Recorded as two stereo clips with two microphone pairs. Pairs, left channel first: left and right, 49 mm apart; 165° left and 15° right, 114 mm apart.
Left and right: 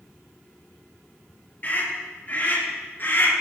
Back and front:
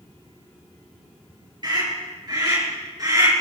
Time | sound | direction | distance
1.6 | a scream | 35° left | 6.5 m